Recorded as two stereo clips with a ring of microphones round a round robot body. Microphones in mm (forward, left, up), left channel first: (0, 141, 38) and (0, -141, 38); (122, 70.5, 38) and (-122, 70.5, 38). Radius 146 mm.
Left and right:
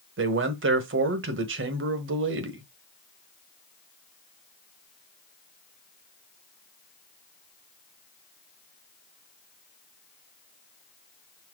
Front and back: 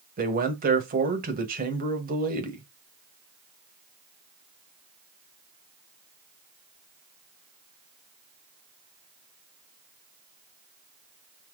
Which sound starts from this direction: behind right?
A man speaking, at 0.2 s.